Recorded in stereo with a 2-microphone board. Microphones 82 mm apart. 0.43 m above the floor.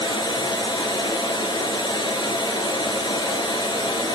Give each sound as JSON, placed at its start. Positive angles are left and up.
{"t": 0.0, "sound": "running water", "side_deg": 65, "distance_m": 2.5}